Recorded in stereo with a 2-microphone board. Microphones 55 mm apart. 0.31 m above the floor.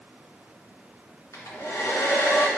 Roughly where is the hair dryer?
Left.